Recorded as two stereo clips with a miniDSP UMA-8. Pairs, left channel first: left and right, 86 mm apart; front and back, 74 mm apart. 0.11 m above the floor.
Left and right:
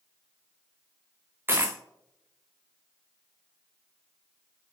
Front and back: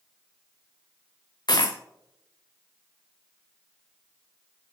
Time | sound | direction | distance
1.5 | a dropped coin | 25° right | 0.9 m